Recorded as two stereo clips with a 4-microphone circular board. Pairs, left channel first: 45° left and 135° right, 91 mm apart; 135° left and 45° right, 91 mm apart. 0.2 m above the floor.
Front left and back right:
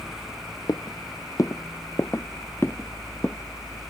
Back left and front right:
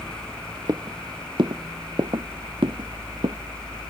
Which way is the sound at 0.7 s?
Straight ahead.